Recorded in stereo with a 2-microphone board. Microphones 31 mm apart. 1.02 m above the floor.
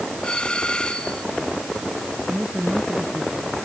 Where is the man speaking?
60° right (ahead or behind).